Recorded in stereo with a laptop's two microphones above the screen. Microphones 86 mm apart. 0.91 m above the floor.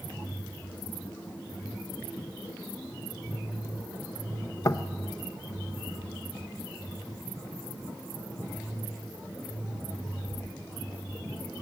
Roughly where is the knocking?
Left.